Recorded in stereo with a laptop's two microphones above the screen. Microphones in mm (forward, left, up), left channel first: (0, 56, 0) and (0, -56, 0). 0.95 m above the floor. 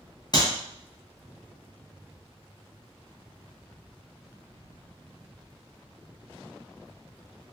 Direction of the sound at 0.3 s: 40° left (ahead or behind).